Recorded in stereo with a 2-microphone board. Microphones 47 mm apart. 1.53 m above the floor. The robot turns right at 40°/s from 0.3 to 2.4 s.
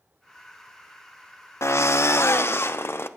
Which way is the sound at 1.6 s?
85° left.